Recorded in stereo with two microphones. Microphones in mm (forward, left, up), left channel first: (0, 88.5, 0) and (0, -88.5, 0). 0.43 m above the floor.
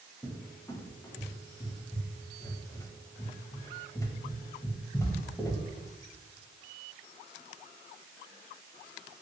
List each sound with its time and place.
0.2 s a cupboard door: 15° left (ahead or behind), 0.5 m